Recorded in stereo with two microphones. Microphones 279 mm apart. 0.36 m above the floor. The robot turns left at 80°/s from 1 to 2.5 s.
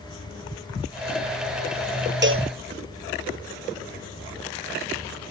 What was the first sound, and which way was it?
A cowbell, 40° right (ahead or behind).